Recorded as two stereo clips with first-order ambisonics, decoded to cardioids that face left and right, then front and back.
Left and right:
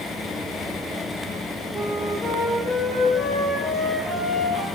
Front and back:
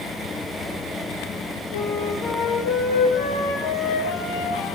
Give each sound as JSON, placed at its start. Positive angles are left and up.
{"t": 1.7, "sound": "a flute", "azimuth_deg": 15, "distance_m": 6.0}